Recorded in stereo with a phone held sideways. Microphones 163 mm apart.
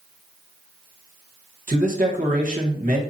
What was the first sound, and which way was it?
A man speaking, 55° right (ahead or behind).